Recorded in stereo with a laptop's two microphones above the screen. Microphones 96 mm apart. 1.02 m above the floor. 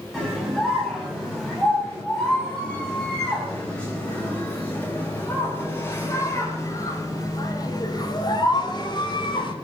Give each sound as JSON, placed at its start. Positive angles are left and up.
{"t": 0.1, "sound": "a scream", "side_deg": 0, "distance_m": 8.0}